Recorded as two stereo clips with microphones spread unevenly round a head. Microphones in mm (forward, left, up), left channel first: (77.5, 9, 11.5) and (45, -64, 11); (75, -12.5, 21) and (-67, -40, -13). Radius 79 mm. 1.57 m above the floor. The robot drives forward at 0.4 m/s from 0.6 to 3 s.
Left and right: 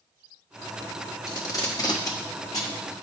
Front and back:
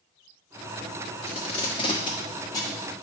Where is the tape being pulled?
35° left, 1.5 m; by 2.8 s 60° left, 1.2 m.